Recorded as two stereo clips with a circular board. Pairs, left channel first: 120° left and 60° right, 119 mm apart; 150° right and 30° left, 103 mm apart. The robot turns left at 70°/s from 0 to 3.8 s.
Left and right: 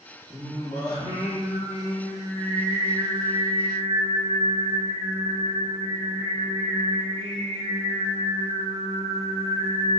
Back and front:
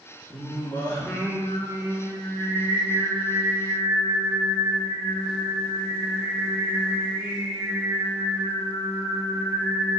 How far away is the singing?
About 2.5 m.